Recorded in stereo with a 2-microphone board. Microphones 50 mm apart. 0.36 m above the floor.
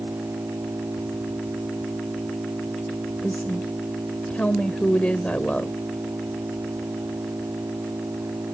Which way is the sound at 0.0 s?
85° right.